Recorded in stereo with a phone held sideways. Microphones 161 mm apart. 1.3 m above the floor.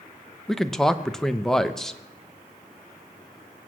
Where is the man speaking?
5° left (ahead or behind), 0.8 m.